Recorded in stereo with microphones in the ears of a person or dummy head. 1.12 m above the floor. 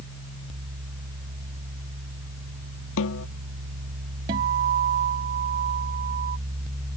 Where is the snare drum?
75° left (ahead or behind).